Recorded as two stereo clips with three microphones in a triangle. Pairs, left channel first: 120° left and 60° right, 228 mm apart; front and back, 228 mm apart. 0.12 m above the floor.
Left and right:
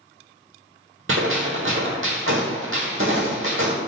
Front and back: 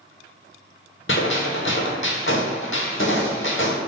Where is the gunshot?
30° right, 1.0 m.